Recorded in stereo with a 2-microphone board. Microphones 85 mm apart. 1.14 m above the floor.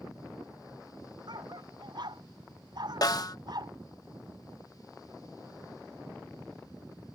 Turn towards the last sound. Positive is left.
turn(degrees=50)  # may be behind; listen again after turning